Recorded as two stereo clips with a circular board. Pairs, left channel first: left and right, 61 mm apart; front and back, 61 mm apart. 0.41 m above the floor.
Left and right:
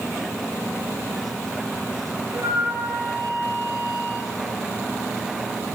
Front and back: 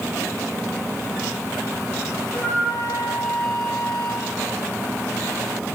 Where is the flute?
65° right, 8.5 m.